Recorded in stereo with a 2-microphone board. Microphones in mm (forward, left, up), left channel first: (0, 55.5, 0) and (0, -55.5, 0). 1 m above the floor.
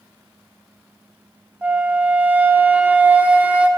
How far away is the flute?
About 0.5 m.